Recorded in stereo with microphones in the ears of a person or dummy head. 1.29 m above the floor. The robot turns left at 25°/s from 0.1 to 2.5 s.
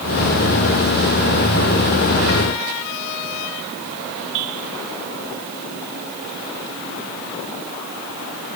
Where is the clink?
I don't hear a clink.